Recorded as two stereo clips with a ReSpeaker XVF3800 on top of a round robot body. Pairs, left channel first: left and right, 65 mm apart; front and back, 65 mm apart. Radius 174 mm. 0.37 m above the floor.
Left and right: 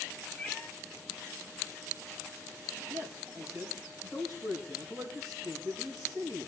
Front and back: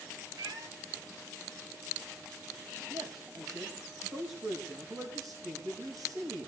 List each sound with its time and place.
0.4 s a cat meowing: 165° left, 1.5 m
2.9 s a man speaking: 150° right, 3.5 m